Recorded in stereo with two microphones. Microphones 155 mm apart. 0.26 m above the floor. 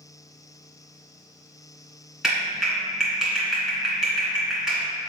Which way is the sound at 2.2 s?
5° right (ahead or behind).